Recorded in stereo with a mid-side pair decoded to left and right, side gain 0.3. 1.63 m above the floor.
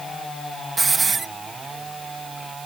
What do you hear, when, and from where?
0.8 s a hiss: 50° right